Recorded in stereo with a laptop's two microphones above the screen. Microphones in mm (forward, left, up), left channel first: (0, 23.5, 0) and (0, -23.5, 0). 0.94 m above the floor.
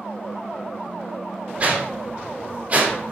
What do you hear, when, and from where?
1.6 s a whoosh: 30° right (ahead or behind), 0.6 m